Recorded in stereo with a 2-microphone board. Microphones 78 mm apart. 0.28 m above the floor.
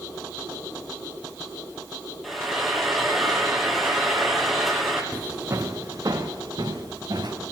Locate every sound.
2.2 s frying: centre (ahead or behind), 1.9 m
5.1 s footsteps: 20° right (ahead or behind), 1.2 m; by 7.3 s 60° right (ahead or behind), 4 m